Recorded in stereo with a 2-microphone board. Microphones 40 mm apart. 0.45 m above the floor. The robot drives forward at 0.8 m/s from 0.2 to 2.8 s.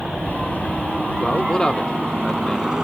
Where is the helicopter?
5° right (ahead or behind); by 2.8 s 15° right (ahead or behind).